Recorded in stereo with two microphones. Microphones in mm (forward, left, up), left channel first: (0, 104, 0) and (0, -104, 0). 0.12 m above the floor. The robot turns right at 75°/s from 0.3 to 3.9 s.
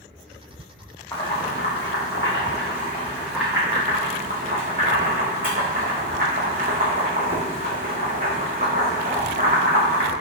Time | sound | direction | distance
1.1 | boiling | 15° left (ahead or behind) | 1.8 m